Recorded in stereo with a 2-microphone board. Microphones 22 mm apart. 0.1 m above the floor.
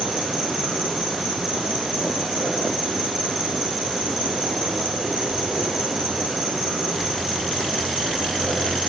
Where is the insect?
10° right (ahead or behind), 7 m.